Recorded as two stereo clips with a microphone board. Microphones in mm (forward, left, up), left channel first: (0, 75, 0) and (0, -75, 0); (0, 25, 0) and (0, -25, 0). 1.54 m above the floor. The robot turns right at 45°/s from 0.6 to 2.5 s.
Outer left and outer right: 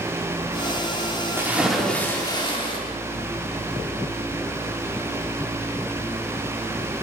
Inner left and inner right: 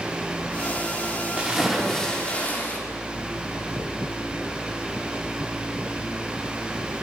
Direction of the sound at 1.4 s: 15° right.